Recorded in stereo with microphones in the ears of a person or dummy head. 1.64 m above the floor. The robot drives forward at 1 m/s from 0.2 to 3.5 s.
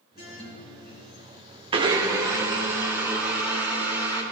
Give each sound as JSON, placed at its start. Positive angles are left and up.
{"t": 0.2, "sound": "a guitar", "side_deg": 45, "distance_m": 3.5}
{"t": 1.7, "sound": "a blender", "side_deg": -25, "distance_m": 0.7}